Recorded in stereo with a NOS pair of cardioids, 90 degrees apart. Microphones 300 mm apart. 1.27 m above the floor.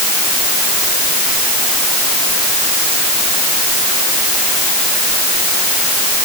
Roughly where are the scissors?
I don't hear scissors.